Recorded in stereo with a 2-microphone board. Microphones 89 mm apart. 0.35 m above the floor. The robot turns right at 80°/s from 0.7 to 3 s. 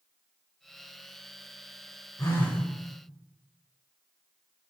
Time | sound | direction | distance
2.2 | a phone buzzing | 135° left | 0.6 m